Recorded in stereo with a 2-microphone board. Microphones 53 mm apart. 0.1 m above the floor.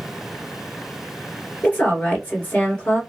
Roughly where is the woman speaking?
Left.